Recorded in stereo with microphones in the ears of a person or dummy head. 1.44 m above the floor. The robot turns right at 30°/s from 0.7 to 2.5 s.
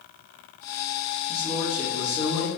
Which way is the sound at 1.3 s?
30° left.